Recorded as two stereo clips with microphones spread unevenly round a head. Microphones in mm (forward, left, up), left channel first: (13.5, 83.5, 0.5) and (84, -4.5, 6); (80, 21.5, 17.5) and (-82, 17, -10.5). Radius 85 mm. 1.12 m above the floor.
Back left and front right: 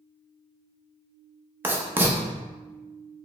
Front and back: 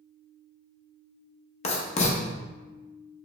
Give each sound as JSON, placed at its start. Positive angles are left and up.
{"t": 1.6, "sound": "writing", "azimuth_deg": 15, "distance_m": 0.7}